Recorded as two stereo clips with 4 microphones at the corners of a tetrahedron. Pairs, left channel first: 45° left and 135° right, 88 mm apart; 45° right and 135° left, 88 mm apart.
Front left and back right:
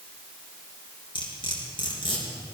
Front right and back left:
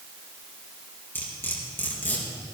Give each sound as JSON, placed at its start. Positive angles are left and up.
{"t": 1.1, "sound": "cutlery clinking", "azimuth_deg": 20, "distance_m": 3.5}